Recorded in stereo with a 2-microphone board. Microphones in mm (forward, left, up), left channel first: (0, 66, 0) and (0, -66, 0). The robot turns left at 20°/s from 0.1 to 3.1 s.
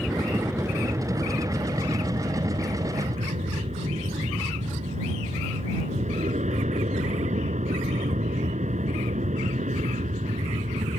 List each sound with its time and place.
0.0 s an aircraft: centre (ahead or behind); by 11.0 s 70° right (ahead or behind)